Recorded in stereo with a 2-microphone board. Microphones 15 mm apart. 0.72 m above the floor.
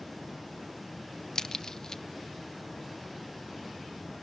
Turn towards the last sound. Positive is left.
turn(degrees=45)  # may be behind; listen again after turning